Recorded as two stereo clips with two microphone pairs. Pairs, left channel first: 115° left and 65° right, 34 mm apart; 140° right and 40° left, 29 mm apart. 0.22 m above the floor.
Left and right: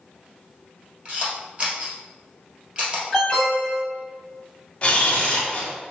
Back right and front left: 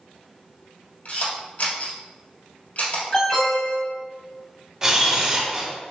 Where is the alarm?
165° right, 1.9 m.